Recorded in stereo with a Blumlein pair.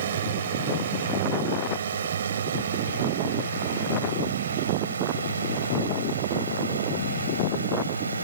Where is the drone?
65° right; by 8.2 s 80° right.